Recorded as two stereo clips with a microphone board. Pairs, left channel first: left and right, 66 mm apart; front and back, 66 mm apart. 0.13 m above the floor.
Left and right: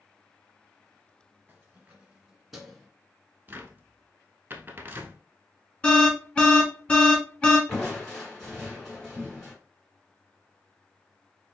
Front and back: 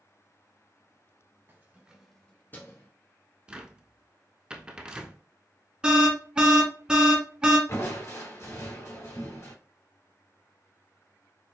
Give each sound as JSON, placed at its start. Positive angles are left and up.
{"t": 1.5, "sound": "keys jangling", "azimuth_deg": -140, "distance_m": 1.5}
{"t": 3.5, "sound": "a cupboard door", "azimuth_deg": -115, "distance_m": 0.7}
{"t": 5.8, "sound": "an alarm", "azimuth_deg": 130, "distance_m": 1.3}
{"t": 7.7, "sound": "crushing", "azimuth_deg": 5, "distance_m": 2.5}